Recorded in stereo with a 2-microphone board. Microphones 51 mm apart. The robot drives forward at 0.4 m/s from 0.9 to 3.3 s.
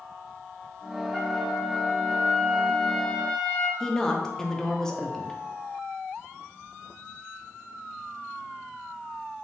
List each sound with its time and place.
1.1 s a trumpet: 5° left (ahead or behind), 1.4 m; by 3.7 s 10° left (ahead or behind), 0.9 m
3.8 s a woman speaking: 10° left (ahead or behind), 0.6 m